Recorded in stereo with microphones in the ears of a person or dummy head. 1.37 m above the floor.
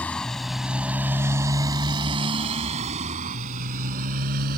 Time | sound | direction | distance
0.0 | a motorcycle | 5° left (ahead or behind) | ?